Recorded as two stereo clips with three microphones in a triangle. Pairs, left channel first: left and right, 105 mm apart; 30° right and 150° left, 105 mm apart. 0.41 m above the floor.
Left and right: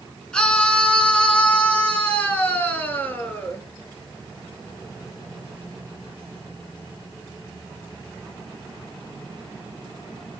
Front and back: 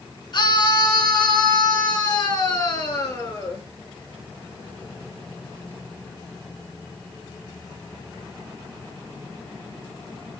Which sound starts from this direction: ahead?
A scream, at 0.3 s.